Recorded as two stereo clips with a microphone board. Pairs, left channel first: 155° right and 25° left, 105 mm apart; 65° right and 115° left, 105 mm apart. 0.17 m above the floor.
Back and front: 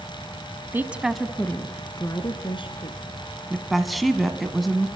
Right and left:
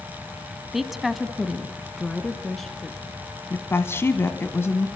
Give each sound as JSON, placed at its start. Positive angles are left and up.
{"t": 0.7, "sound": "a woman speaking", "azimuth_deg": 30, "distance_m": 1.1}
{"t": 3.5, "sound": "a woman speaking", "azimuth_deg": -65, "distance_m": 1.3}